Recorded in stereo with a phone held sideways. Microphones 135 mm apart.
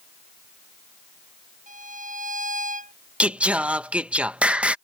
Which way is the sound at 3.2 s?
10° right (ahead or behind).